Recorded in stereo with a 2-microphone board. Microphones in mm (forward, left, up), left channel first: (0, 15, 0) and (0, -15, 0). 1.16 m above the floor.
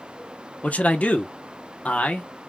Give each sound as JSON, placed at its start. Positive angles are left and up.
{"t": 0.6, "sound": "a man speaking", "side_deg": 50, "distance_m": 0.9}